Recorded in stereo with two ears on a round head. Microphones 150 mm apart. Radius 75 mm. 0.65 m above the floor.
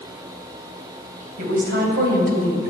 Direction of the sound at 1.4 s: 60° right (ahead or behind).